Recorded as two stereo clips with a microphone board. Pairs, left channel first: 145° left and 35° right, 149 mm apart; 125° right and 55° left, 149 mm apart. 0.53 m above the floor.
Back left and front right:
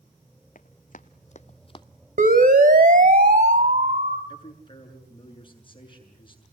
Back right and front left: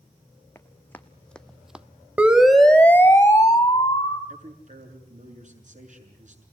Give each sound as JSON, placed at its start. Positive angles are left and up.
{"t": 0.6, "sound": "running footsteps", "azimuth_deg": 160, "distance_m": 1.3}
{"t": 2.2, "sound": "a siren", "azimuth_deg": -25, "distance_m": 2.0}
{"t": 4.3, "sound": "a man speaking", "azimuth_deg": 90, "distance_m": 6.5}